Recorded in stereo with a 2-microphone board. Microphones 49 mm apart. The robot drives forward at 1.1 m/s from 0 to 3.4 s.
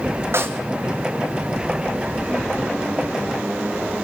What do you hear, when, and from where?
0.3 s a snare drum: 60° right (ahead or behind), 1.5 m; by 0.6 s 50° right (ahead or behind), 1.6 m